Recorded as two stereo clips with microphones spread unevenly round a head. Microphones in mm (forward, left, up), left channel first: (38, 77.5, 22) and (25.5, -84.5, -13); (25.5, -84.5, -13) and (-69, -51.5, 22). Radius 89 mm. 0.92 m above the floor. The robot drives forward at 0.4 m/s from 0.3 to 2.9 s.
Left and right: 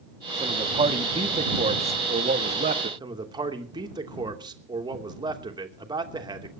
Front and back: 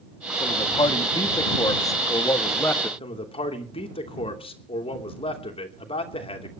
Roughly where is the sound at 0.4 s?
Ahead right.